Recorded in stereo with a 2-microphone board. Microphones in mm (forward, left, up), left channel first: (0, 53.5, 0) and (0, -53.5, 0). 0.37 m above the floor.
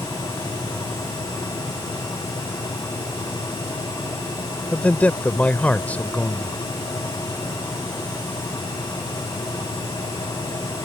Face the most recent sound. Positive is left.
turn(degrees=15)  # may be behind; listen again after turning